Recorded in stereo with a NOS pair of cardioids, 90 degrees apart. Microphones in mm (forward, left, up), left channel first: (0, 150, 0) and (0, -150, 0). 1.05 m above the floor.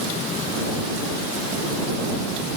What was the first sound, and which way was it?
Only background noise.